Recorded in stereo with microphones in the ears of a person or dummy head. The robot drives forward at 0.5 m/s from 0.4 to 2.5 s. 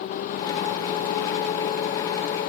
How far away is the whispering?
I don't hear whispering.